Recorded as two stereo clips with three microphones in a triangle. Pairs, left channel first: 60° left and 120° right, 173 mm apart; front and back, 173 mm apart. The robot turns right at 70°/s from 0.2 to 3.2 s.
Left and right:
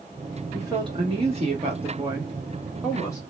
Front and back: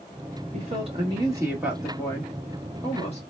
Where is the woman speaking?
Straight behind, 1.0 m; by 3.2 s 5° left, 1.0 m.